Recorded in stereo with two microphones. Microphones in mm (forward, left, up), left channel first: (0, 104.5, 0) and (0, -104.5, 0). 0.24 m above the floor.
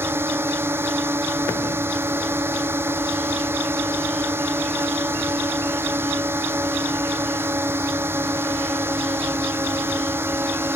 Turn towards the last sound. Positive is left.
turn(degrees=-10)  # may be behind; listen again after turning